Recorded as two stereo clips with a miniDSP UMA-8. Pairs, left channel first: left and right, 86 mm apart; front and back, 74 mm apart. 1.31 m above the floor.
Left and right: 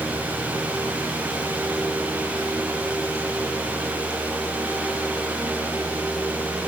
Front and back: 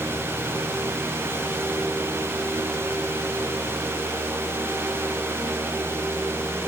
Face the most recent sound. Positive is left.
No sound to turn to.